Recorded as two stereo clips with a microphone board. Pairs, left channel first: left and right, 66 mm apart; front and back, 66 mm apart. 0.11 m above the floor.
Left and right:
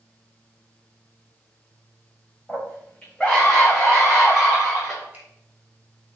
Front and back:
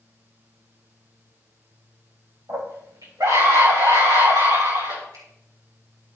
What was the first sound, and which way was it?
A scream, 165° left.